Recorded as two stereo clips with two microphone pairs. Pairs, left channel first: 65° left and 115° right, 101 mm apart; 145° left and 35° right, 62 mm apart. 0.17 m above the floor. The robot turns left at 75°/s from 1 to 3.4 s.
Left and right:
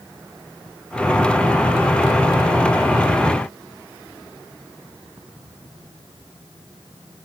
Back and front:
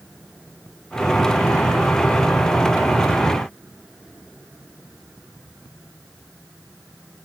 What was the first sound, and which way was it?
Only background noise.